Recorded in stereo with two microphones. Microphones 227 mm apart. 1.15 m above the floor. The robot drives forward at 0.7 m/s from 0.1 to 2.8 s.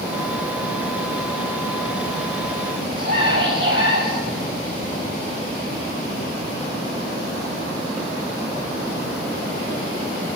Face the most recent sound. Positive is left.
turn(degrees=-45)  # may be behind; listen again after turning